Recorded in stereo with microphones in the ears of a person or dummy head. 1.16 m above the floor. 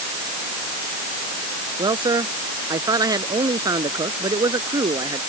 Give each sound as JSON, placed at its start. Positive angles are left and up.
{"t": 1.8, "sound": "a man speaking", "side_deg": -20}